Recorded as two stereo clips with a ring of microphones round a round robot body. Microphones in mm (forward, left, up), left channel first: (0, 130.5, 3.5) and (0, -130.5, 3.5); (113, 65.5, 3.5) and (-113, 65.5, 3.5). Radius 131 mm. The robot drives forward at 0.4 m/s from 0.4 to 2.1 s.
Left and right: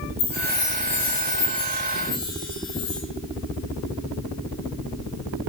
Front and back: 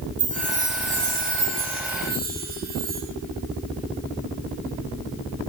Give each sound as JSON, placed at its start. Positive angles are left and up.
{"t": 0.2, "sound": "a chime", "azimuth_deg": 125, "distance_m": 4.5}